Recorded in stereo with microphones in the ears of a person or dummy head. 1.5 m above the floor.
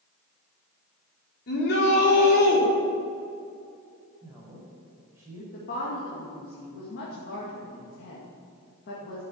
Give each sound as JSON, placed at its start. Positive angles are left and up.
{"t": 1.5, "sound": "a shout", "side_deg": 60, "distance_m": 4.0}
{"t": 4.2, "sound": "a woman speaking", "side_deg": -15, "distance_m": 5.0}
{"t": 5.5, "sound": "a woman speaking", "side_deg": 50, "distance_m": 2.5}